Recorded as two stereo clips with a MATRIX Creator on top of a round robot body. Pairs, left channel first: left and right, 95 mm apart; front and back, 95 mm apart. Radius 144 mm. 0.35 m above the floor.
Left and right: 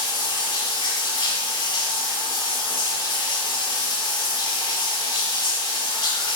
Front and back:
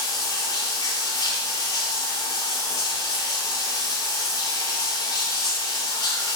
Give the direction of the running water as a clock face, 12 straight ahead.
11 o'clock.